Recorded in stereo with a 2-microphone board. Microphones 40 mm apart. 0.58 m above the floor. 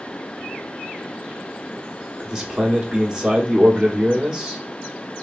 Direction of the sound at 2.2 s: 15° right (ahead or behind).